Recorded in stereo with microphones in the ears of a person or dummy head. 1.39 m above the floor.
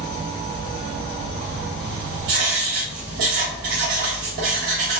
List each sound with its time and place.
0.0 s an insect: 30° left (ahead or behind), 1.5 m
2.3 s writing: 40° right (ahead or behind), 1.1 m